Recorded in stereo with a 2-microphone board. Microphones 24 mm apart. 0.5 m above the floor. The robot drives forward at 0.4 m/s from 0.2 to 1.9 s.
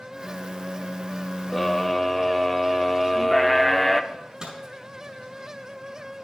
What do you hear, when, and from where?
1.5 s a scream: centre (ahead or behind), 1.0 m
4.1 s a microwave: 30° right (ahead or behind), 4.5 m